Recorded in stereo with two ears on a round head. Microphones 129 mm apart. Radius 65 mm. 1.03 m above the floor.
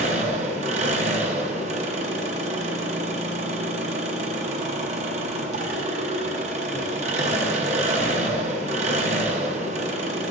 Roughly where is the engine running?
Right.